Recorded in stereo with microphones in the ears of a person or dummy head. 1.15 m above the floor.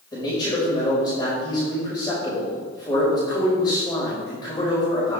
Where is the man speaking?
25° left (ahead or behind), 5.5 m.